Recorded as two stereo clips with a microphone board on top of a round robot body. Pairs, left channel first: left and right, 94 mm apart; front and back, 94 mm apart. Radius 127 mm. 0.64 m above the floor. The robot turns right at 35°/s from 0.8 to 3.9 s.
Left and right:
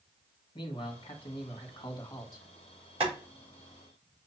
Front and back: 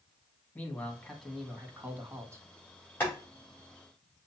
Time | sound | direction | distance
0.6 | a man speaking | 75° left | 1.6 m
3.0 | boiling | 70° right | 3.5 m